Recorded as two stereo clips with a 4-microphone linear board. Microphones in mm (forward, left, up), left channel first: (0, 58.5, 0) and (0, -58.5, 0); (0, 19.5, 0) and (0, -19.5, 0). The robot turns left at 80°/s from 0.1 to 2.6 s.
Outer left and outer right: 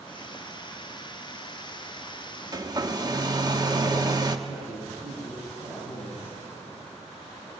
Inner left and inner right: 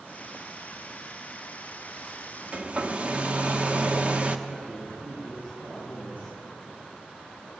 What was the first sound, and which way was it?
A hair dryer, 35° right (ahead or behind).